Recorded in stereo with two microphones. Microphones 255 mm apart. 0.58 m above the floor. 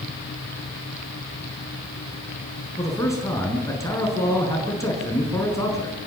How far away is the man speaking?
About 8 m.